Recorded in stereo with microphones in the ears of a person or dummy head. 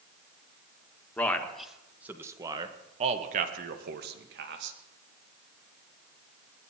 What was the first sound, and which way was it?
A man speaking, 5° left (ahead or behind).